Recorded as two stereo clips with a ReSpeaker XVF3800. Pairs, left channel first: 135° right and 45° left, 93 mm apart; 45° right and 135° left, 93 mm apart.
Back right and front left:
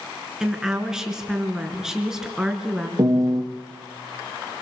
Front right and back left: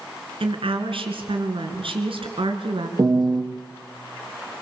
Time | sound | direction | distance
0.4 | a woman speaking | 130° left | 4 m
3.0 | a piano | 90° left | 3.5 m